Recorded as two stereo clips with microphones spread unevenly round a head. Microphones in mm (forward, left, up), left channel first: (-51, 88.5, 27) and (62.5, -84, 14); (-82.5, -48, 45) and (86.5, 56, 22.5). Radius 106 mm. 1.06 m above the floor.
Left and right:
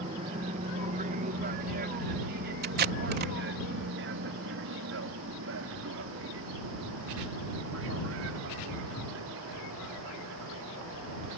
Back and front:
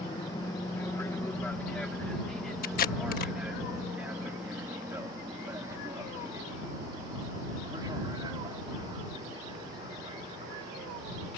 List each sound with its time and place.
0.0 s an aircraft: 90° right; by 11.4 s 35° right
2.6 s tape being pulled: 100° right